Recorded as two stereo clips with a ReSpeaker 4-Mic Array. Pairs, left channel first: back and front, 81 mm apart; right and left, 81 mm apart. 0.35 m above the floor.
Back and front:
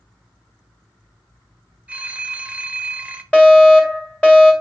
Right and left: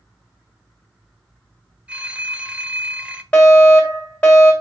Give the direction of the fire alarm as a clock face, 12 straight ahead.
4 o'clock.